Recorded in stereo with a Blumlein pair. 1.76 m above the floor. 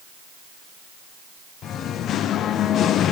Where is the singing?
30° left, 0.6 m.